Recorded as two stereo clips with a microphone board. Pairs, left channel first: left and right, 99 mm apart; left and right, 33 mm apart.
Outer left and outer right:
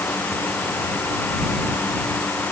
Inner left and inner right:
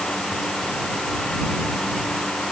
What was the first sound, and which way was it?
Only background noise.